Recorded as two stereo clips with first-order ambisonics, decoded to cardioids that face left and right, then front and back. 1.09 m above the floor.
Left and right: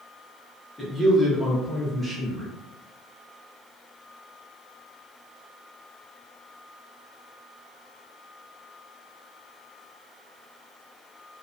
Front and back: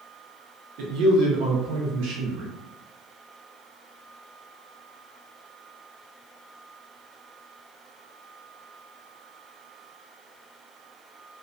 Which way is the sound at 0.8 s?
175° left.